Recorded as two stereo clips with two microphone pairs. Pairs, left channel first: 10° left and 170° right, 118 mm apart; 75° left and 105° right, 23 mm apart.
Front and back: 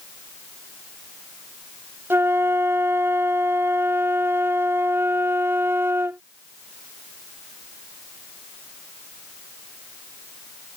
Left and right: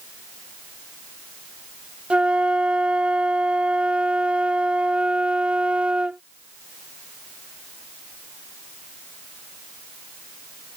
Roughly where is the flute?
Right.